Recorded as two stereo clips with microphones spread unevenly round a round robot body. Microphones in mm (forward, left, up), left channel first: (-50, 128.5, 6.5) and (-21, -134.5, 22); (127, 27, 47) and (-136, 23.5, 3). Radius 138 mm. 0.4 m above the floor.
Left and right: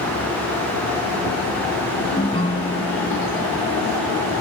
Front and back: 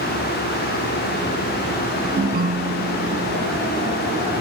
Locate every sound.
2.2 s a ringtone: 155° left